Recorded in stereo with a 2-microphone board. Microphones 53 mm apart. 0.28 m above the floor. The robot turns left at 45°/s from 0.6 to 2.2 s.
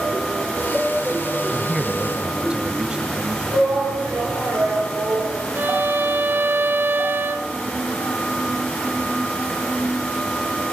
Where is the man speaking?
Straight ahead, 1.1 m; by 3.4 s 30° right, 1.1 m.